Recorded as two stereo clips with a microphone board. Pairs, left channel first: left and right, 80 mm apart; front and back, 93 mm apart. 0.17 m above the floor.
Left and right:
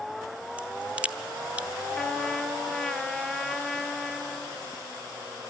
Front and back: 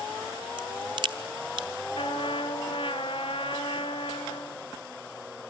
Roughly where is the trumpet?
Ahead.